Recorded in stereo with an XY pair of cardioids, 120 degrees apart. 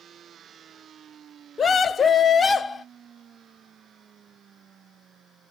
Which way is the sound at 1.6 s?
35° left.